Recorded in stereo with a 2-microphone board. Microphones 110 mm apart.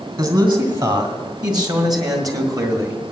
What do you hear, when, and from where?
0.2 s a man speaking: 40° right (ahead or behind), 2.5 m; by 3.0 s 30° right (ahead or behind), 1.5 m